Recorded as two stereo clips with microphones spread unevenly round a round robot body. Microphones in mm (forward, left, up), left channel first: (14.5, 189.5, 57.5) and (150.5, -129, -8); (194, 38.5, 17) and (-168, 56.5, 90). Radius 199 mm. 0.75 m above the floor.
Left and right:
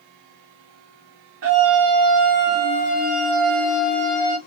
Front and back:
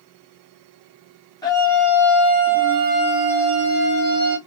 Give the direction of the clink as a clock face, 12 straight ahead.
No clink in this recording.